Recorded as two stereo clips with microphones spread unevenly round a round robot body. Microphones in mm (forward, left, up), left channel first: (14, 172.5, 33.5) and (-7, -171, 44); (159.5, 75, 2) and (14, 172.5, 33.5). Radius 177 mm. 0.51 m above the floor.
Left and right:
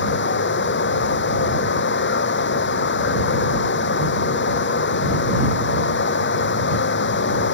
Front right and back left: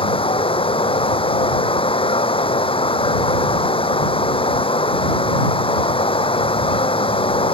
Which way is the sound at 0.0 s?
25° left.